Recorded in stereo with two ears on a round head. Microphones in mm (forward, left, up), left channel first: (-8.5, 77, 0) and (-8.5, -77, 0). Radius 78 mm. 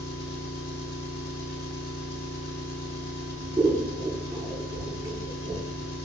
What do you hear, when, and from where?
0.0 s an engine running: 50° left (ahead or behind), 1.4 m
3.6 s scissors: 10° right (ahead or behind), 1.3 m